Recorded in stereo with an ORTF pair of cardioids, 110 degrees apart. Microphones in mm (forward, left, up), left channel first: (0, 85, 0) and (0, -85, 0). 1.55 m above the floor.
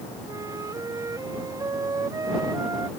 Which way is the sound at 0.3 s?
20° right.